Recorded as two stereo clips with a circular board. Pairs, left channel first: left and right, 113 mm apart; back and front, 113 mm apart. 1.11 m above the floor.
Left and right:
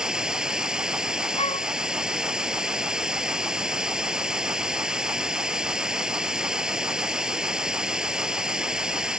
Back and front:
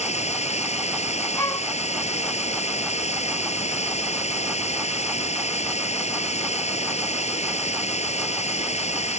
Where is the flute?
120° left.